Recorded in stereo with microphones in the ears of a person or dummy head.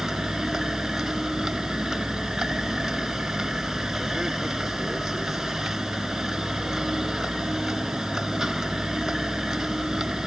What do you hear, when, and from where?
0.0 s a vehicle: 5° right (ahead or behind)